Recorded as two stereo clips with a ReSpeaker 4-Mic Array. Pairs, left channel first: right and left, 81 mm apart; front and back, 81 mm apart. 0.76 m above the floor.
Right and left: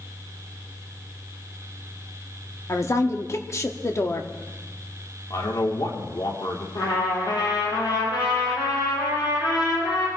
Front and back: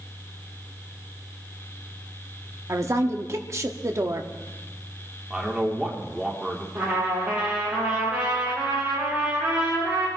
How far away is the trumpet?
About 7.5 m.